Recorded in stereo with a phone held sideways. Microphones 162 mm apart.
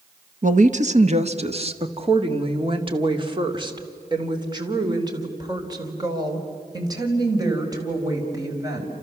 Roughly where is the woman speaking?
Right.